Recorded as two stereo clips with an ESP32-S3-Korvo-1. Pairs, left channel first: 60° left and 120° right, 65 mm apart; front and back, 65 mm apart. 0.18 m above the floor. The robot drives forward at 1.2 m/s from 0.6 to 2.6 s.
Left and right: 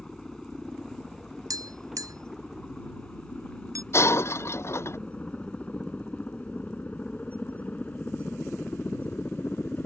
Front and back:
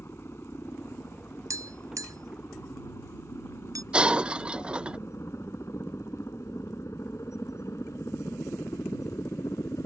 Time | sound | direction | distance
0.0 | a helicopter | 20° right | ?
1.5 | tapping | 140° right | ?
3.9 | breaking glass | 105° left | ?